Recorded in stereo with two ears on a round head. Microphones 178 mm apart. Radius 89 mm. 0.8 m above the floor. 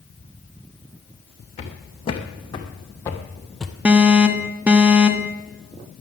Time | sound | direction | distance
1.6 | footsteps | 30° left (ahead or behind) | 2.5 m
3.9 | an alarm | 5° right (ahead or behind) | 0.9 m